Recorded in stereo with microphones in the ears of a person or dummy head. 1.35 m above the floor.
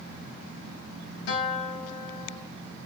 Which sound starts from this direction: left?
A guitar, at 1.3 s.